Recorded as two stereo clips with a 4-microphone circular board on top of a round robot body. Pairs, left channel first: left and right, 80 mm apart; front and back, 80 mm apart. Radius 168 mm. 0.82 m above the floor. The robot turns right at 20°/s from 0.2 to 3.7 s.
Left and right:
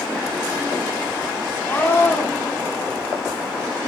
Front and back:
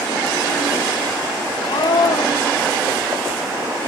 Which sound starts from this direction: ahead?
A scream, at 1.7 s.